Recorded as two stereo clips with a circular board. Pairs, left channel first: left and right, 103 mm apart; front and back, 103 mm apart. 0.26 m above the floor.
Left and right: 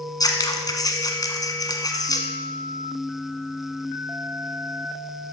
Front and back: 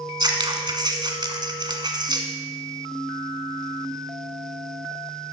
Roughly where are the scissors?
Behind left.